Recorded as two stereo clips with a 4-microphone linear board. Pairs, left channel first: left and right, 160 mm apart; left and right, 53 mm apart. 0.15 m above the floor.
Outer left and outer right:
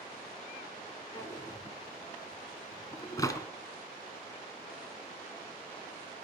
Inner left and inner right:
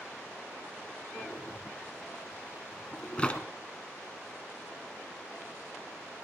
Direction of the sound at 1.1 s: 20° left (ahead or behind).